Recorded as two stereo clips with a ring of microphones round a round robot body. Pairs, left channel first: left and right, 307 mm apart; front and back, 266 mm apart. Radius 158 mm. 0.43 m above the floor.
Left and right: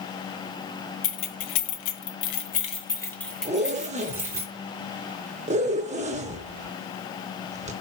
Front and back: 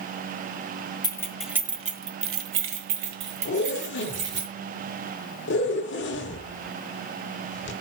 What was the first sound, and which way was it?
Keys jangling, 75° left.